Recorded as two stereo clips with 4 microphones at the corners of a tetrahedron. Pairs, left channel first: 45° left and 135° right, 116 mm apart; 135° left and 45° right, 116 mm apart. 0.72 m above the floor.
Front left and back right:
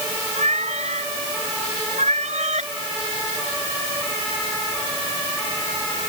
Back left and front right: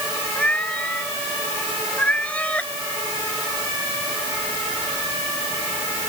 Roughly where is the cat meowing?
Behind right.